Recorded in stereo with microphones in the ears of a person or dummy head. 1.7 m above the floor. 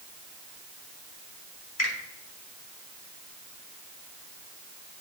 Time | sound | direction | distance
1.8 | a finger snap | 75° left (ahead or behind) | 3.5 m